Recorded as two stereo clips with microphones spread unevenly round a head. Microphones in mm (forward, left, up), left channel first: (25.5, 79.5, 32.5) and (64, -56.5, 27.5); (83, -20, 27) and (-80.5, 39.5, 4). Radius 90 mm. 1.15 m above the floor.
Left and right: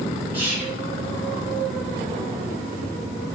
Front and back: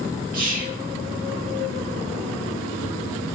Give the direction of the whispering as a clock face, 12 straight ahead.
5 o'clock.